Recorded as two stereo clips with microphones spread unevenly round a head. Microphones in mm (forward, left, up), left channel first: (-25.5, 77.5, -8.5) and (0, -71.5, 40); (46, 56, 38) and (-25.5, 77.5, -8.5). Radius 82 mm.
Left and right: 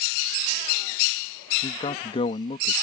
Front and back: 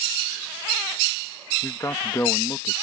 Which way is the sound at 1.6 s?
40° left.